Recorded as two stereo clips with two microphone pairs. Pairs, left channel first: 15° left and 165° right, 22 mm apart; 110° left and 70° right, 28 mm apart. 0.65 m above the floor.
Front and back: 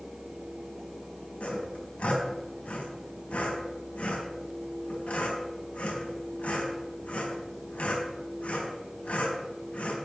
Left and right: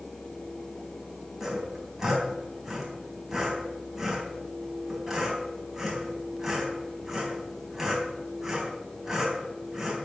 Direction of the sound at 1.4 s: 5° left.